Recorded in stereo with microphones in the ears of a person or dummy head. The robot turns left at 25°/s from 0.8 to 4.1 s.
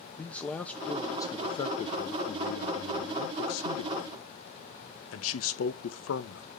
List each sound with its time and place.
0.2 s a man speaking: straight behind, 1.0 m; by 6.5 s 95° left, 1.0 m